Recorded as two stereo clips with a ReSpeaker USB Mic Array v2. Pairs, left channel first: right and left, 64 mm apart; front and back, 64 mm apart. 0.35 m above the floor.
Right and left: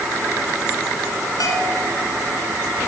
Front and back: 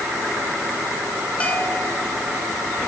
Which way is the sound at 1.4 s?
70° right.